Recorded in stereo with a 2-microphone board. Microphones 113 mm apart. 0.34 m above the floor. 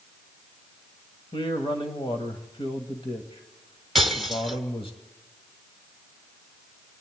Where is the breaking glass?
Centre (ahead or behind), 1.1 m.